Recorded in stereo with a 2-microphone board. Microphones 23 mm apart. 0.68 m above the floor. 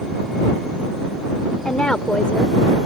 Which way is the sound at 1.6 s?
45° left (ahead or behind).